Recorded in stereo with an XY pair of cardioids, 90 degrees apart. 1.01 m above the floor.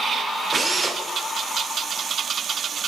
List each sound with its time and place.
0.5 s a drill: 30° right, 2 m